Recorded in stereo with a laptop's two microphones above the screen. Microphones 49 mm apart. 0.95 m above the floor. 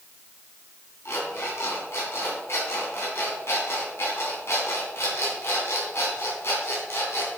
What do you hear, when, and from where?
1.1 s an alarm clock: 60° left (ahead or behind), 3 m